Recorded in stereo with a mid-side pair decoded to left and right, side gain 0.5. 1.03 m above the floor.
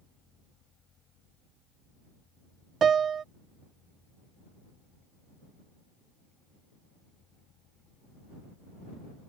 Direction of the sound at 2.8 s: 45° right.